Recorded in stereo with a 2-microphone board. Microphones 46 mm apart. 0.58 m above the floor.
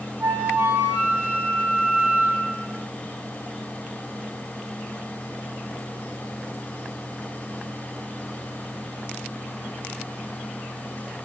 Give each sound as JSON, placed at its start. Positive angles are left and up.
{"t": 0.2, "sound": "a flute", "side_deg": -55, "distance_m": 0.7}